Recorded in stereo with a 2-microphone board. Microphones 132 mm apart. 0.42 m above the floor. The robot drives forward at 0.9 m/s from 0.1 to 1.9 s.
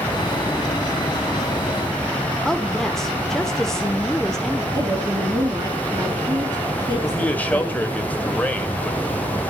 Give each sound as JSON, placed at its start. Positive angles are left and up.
{"t": 2.5, "sound": "a woman speaking", "side_deg": 5, "distance_m": 1.0}
{"t": 4.7, "sound": "a woman speaking", "side_deg": -35, "distance_m": 4.5}
{"t": 7.0, "sound": "a man speaking", "side_deg": 10, "distance_m": 2.0}